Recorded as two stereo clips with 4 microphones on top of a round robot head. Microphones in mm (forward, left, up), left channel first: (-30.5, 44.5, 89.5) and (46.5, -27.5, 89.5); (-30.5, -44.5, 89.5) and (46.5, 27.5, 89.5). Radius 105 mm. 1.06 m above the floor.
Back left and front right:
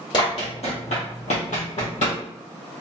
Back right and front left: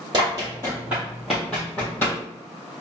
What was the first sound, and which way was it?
Running footsteps, 95° left.